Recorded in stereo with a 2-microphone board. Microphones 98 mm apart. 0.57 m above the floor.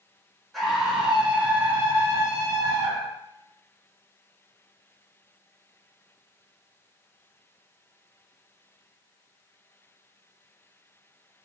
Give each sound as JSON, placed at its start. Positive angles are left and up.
{"t": 0.5, "sound": "a scream", "side_deg": 0, "distance_m": 1.2}